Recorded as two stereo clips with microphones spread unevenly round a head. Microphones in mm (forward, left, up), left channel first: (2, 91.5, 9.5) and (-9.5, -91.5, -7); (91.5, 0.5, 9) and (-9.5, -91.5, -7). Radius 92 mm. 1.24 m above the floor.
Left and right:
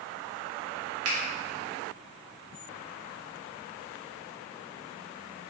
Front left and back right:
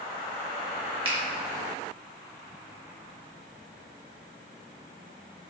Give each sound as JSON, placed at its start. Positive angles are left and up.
{"t": 1.1, "sound": "a finger snap", "azimuth_deg": -85, "distance_m": 1.0}